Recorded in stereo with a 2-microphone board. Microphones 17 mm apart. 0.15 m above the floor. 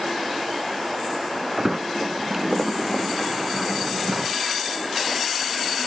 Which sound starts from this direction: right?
A sliding door, at 1.6 s.